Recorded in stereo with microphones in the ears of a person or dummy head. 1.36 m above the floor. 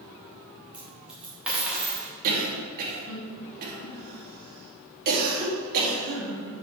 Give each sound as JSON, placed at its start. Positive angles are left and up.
{"t": 0.7, "sound": "a dropped coin", "side_deg": -5, "distance_m": 1.5}
{"t": 2.2, "sound": "a cough", "side_deg": -50, "distance_m": 3.0}